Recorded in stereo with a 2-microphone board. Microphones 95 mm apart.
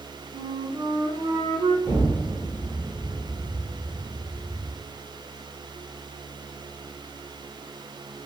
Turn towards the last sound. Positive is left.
turn(degrees=-40)  # may be behind; listen again after turning